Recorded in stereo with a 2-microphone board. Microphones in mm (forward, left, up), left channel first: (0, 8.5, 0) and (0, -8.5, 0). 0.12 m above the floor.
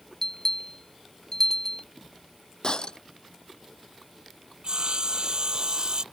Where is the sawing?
50° right (ahead or behind).